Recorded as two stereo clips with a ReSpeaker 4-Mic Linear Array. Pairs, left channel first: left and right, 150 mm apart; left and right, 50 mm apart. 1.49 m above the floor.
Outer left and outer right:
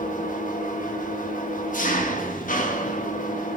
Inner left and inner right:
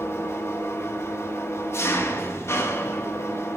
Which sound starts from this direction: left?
An engine running, at 0.0 s.